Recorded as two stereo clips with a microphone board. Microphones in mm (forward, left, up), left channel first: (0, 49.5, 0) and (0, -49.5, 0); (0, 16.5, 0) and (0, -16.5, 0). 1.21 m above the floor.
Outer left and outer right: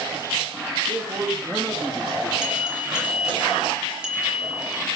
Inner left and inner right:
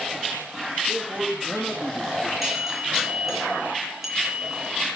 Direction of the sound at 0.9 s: 45° right (ahead or behind).